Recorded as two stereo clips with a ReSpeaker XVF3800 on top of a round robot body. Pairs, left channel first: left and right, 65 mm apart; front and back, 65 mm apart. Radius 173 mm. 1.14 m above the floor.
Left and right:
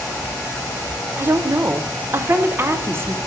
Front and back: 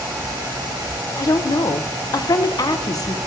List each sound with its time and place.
1.2 s a woman speaking: 30° right, 0.8 m